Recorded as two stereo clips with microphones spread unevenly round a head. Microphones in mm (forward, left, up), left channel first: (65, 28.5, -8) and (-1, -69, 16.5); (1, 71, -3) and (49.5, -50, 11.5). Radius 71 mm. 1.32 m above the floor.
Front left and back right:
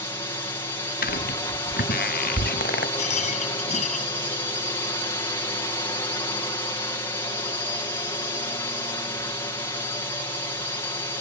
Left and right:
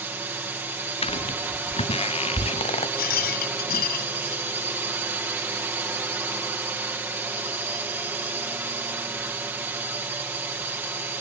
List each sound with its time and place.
0.0 s a drone: 5° left
1.0 s footsteps: 65° left; by 2.9 s 70° left
3.0 s a rattle: 105° left